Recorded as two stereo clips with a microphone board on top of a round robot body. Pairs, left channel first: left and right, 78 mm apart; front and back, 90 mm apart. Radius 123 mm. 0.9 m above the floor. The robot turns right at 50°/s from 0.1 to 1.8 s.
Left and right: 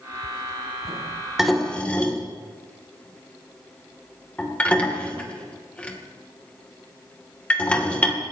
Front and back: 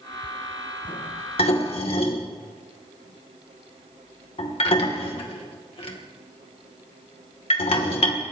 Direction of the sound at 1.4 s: 5° right.